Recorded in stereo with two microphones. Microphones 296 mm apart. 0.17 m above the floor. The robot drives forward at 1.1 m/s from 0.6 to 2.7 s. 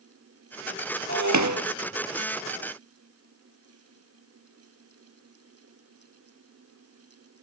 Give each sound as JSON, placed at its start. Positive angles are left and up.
{"t": 1.1, "sound": "breaking glass", "side_deg": -70, "distance_m": 1.9}